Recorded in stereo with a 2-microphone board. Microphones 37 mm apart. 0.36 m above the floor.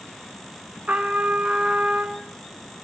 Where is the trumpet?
40° right (ahead or behind), 0.5 m.